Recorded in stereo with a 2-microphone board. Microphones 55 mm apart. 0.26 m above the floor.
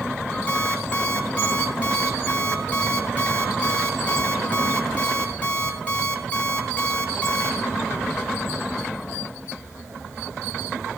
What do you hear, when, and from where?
0.5 s an alarm clock: 25° left (ahead or behind), 2.5 m